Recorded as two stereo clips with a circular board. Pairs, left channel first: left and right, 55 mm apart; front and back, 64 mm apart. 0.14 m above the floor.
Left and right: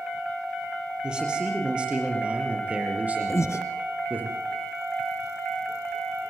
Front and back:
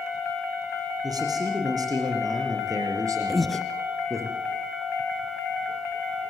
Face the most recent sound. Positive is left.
turn(degrees=90)